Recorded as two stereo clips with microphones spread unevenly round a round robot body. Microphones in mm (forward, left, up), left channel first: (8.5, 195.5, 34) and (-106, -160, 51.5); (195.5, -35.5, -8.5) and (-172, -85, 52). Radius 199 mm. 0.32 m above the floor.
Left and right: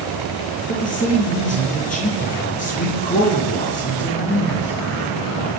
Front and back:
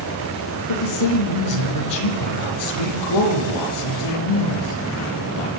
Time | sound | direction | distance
0.7 | a man speaking | straight ahead | 7.5 m